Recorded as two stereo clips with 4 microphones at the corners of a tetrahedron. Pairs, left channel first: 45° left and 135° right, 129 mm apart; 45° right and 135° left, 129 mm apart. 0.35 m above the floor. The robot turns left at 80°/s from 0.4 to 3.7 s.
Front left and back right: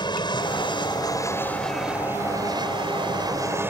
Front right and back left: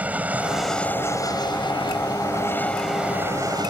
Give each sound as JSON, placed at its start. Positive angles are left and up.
{"t": 0.0, "sound": "an aircraft", "azimuth_deg": 65}